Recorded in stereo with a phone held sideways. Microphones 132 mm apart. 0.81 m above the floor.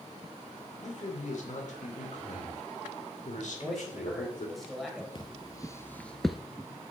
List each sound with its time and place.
0.8 s a man speaking: 65° left (ahead or behind), 2.5 m
3.5 s a man speaking: centre (ahead or behind), 3 m
5.2 s footsteps: 35° left (ahead or behind), 1.0 m; by 6.4 s 5° right (ahead or behind), 0.8 m